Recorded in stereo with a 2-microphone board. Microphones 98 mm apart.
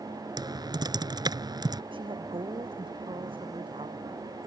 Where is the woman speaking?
60° right (ahead or behind).